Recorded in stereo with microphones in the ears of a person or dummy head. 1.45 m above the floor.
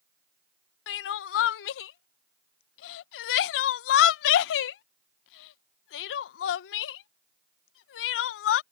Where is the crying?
75° left (ahead or behind).